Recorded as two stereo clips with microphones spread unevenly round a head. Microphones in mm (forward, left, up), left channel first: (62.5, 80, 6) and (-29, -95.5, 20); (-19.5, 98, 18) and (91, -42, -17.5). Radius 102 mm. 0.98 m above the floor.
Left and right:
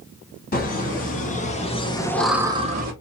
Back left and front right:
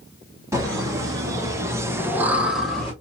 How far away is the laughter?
About 2.5 m.